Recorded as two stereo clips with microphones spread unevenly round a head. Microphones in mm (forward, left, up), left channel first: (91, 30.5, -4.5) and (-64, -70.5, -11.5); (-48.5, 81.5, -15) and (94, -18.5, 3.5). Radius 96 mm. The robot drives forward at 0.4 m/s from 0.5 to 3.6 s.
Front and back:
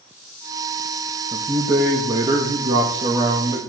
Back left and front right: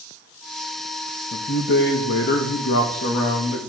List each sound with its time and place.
1.3 s a man speaking: 140° left, 1.3 m; by 3.6 s 155° left, 2.0 m